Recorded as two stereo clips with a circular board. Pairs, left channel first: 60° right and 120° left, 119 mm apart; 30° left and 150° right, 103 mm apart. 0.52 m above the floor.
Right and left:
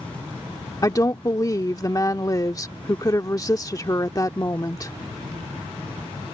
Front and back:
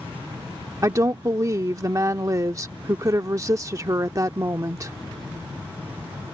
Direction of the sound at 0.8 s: 105° right.